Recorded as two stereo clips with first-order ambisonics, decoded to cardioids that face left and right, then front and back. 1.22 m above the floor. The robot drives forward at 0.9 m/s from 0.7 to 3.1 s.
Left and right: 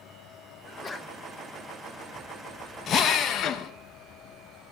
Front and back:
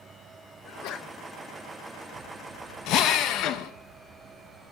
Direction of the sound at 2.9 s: 35° left.